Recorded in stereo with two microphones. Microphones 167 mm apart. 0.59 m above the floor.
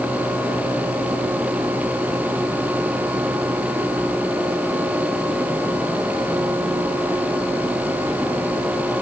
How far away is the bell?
I don't hear a bell.